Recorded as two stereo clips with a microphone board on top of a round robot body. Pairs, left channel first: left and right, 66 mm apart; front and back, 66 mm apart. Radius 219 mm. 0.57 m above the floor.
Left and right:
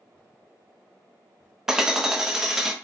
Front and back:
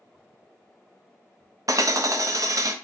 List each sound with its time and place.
1.7 s hammering: 170° right, 0.6 m